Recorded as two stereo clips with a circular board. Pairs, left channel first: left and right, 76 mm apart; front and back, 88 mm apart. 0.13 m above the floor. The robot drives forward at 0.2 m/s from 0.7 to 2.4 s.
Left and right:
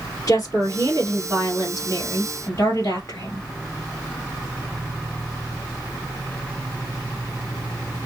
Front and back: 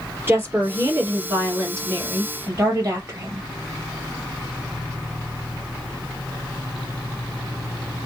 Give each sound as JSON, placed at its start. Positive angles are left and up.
{"t": 0.3, "sound": "a woman speaking", "azimuth_deg": 120, "distance_m": 2.0}